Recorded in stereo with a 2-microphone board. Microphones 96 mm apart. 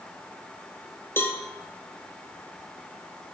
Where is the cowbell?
25° left (ahead or behind), 0.7 m.